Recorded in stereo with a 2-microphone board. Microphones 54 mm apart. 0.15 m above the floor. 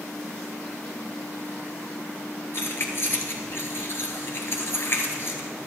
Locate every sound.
2.5 s keys jangling: 45° left (ahead or behind), 2.0 m